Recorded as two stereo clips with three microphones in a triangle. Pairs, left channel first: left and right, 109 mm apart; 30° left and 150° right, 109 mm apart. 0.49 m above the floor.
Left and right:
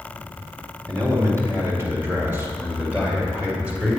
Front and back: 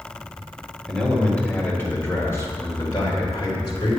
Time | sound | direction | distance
0.9 | a man speaking | 55° right | 1.8 m